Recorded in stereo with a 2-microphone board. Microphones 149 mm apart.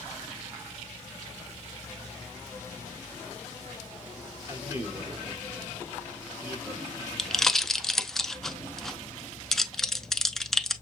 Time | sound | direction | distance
4.5 | a man speaking | 20° right (ahead or behind) | 4 m
7.2 | a pop | centre (ahead or behind) | 0.5 m